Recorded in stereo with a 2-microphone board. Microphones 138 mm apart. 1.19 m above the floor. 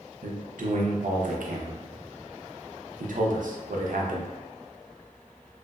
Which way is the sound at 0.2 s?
75° right (ahead or behind).